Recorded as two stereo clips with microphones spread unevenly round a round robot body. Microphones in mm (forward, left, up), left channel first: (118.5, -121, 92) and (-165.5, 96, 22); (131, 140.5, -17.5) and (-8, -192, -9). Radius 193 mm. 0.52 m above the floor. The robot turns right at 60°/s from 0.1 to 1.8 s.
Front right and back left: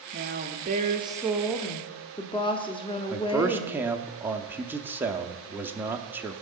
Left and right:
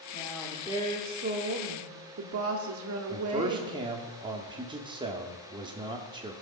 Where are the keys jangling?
No keys jangling in this recording.